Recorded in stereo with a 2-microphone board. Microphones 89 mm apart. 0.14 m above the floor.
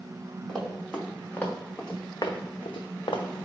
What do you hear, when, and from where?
0.5 s running footsteps: 10° left (ahead or behind), 1.4 m; by 3.5 s 60° left (ahead or behind), 0.7 m